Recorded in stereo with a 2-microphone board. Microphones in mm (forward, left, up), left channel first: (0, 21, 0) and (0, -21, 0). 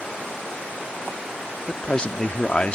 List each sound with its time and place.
1.7 s a man speaking: 25° left (ahead or behind)